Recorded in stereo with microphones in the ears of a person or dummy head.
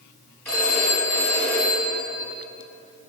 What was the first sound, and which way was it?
A phone ringing, 15° left (ahead or behind).